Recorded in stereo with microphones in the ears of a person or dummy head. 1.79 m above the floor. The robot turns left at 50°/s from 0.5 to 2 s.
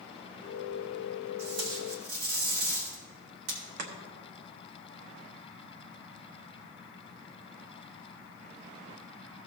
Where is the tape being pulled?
60° right, 3 m; by 3.6 s 90° right, 3 m.